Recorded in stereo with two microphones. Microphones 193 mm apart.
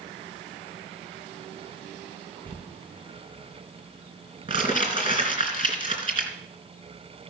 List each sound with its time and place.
2.5 s crumpling: 25° right (ahead or behind), 3 m